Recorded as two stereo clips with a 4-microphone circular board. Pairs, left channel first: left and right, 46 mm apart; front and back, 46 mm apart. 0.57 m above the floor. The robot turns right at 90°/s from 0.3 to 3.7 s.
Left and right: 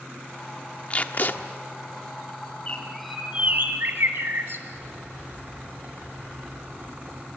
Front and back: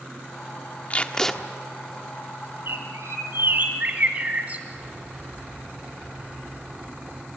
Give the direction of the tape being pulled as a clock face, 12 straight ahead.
11 o'clock.